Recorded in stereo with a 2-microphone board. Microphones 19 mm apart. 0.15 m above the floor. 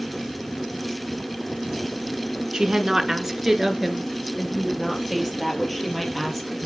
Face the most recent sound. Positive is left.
turn(degrees=10)  # may be behind; listen again after turning